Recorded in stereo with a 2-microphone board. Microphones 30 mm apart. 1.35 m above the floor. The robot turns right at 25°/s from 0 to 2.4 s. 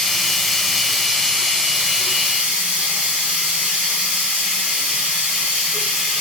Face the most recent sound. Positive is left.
turn(degrees=-130)